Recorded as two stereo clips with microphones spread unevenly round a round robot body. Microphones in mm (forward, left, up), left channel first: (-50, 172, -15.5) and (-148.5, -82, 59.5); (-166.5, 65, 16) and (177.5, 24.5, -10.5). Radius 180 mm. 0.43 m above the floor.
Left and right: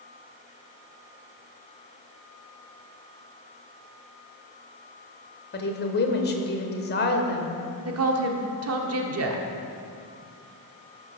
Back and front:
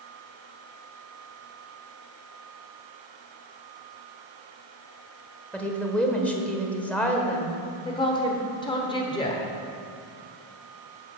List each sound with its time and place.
5.5 s a woman speaking: 85° left, 1.3 m
7.8 s a woman speaking: 110° right, 1.1 m